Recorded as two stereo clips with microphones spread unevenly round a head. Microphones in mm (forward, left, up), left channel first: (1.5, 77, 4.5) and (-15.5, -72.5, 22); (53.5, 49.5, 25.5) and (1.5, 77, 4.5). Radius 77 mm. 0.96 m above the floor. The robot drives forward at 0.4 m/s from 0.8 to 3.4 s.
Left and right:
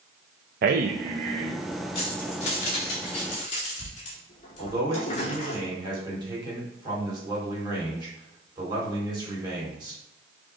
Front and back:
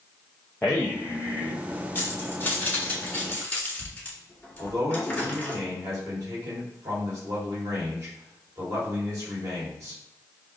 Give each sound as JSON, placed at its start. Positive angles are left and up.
{"t": 0.6, "sound": "a man speaking", "azimuth_deg": -115, "distance_m": 0.5}
{"t": 1.9, "sound": "keys jangling", "azimuth_deg": 30, "distance_m": 2.5}
{"t": 4.6, "sound": "a man speaking", "azimuth_deg": -160, "distance_m": 2.5}